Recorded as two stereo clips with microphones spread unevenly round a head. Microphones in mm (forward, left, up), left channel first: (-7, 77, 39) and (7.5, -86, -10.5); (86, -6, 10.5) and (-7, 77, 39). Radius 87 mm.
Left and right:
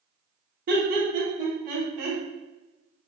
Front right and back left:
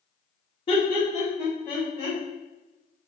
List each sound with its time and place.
0.7 s laughter: 85° right, 0.6 m; by 2.2 s 120° right, 1.1 m